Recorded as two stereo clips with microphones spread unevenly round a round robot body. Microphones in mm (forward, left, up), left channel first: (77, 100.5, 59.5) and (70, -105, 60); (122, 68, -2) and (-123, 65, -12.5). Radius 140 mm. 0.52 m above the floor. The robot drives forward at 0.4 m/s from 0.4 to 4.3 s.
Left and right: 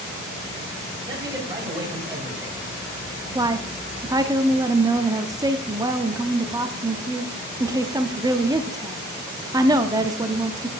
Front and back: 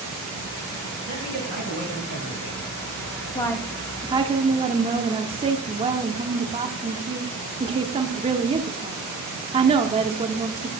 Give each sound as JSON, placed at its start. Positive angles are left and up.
{"t": 1.1, "sound": "a man speaking", "azimuth_deg": -20, "distance_m": 3.5}
{"t": 3.4, "sound": "a woman speaking", "azimuth_deg": -55, "distance_m": 0.6}